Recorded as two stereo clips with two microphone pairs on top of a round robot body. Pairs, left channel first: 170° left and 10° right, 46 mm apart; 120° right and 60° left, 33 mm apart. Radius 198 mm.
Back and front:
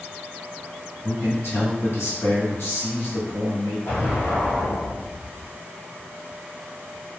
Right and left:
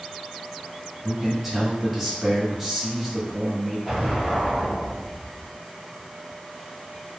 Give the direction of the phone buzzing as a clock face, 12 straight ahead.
No phone buzzing in this recording.